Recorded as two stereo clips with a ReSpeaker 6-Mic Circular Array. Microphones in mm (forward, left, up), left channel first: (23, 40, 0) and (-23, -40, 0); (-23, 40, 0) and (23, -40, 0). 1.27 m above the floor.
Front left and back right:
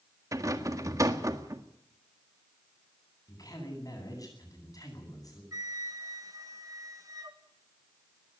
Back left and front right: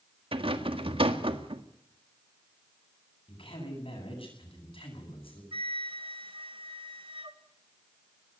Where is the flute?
70° right, 1.8 m.